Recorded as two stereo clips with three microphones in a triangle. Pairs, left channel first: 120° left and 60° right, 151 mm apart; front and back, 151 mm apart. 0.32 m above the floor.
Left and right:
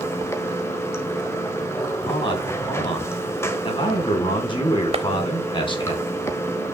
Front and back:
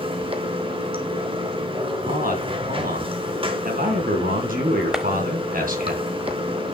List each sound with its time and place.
0.0 s running water: straight behind, 1.3 m
2.0 s a man speaking: 175° left, 3 m
4.9 s a clap: 95° right, 0.9 m